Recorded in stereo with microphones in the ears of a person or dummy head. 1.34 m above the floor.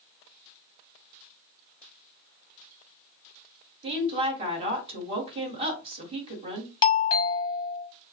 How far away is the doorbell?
About 1.0 m.